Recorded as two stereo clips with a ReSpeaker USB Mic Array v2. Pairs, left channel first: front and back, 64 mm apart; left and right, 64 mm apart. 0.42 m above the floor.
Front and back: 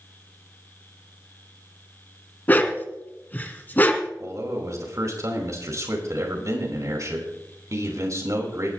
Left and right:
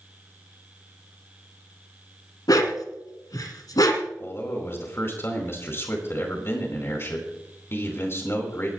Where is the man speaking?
140° left, 4 m.